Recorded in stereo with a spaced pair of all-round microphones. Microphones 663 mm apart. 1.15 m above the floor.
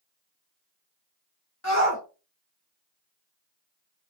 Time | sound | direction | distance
1.6 | a shout | 25° left (ahead or behind) | 0.9 m